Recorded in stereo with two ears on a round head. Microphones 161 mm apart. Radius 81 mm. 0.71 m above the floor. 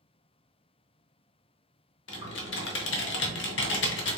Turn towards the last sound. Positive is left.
turn(degrees=70)  # may be behind; listen again after turning